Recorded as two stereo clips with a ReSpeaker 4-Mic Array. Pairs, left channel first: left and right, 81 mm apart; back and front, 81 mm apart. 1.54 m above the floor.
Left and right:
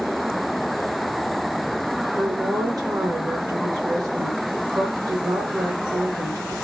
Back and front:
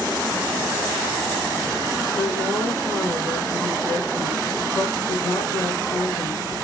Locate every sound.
2.2 s a woman speaking: 130° right, 1.7 m